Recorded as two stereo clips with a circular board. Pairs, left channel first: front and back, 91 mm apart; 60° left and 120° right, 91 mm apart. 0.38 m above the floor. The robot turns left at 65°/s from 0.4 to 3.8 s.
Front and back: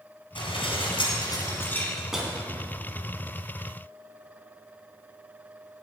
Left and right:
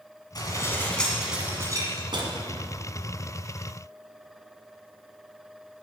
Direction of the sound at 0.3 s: 20° left.